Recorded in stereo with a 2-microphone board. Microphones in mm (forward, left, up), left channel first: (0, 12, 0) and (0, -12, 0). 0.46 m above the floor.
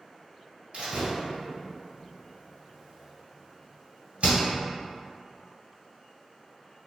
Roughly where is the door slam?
Right.